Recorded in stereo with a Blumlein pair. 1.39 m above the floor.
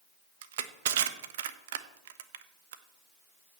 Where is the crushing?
55° right, 0.9 m.